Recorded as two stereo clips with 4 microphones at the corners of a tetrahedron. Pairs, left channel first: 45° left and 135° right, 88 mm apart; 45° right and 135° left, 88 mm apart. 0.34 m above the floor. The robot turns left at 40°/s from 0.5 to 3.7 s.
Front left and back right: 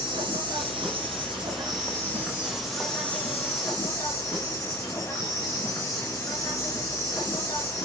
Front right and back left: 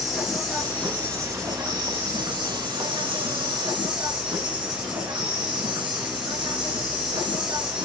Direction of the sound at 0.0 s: 135° right.